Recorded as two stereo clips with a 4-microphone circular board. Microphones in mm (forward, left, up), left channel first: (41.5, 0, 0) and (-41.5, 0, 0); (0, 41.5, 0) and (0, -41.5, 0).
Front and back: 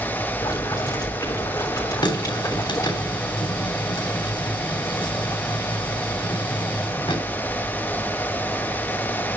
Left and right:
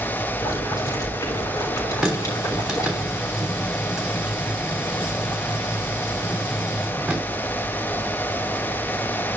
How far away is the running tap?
About 3 m.